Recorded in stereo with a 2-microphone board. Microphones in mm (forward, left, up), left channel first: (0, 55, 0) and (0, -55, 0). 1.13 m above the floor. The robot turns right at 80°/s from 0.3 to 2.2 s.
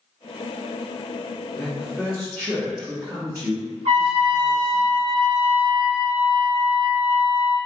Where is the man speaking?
160° left, 1.2 m; by 4.8 s 145° right, 1.2 m.